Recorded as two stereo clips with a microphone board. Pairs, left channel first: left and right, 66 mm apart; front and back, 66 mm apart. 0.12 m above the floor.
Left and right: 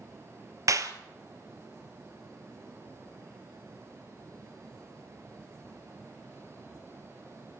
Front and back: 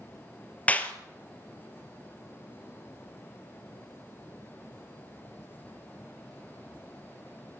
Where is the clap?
65° right, 1.8 m.